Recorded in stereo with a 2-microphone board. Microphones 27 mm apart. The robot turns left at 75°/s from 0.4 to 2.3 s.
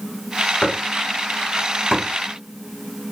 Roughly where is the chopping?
Left.